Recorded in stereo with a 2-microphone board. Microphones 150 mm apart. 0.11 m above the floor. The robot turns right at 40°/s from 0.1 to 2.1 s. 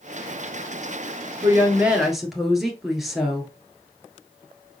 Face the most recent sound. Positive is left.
turn(degrees=0)  # may be behind; listen again after turning